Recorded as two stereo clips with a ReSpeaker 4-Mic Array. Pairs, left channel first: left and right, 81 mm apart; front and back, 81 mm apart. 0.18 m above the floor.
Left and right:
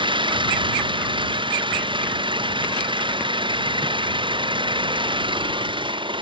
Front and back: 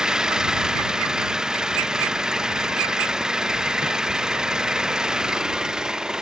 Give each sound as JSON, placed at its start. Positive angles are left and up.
{"t": 0.0, "sound": "an engine running", "azimuth_deg": -100}